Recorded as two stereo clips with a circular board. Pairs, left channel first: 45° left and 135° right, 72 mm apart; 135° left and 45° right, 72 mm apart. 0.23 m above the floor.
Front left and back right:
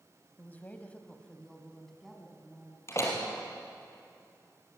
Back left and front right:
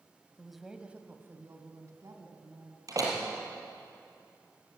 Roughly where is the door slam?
Ahead.